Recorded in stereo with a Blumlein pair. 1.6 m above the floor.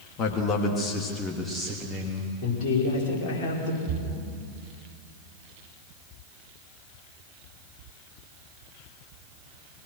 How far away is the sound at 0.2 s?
About 3 m.